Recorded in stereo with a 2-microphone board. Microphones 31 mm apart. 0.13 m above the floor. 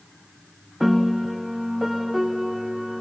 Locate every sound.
0.8 s a piano: 10° right (ahead or behind), 0.9 m